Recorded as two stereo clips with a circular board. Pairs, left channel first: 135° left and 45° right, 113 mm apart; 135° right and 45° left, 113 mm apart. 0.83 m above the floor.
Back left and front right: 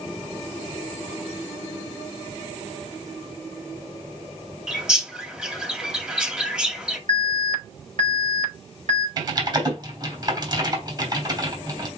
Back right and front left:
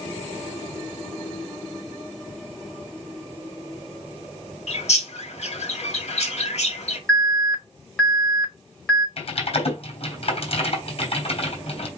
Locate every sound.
4.7 s a bird: 125° right, 2 m
7.1 s an alarm: 55° right, 5 m
9.2 s typing on a keyboard: 100° right, 3.5 m